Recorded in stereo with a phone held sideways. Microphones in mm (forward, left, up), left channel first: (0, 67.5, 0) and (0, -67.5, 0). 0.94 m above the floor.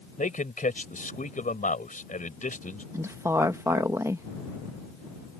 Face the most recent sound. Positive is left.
turn(degrees=-20)  # may be behind; listen again after turning